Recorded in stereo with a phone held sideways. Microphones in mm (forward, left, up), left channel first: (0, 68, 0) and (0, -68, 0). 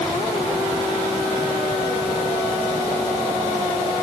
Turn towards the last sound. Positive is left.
No sound to turn to.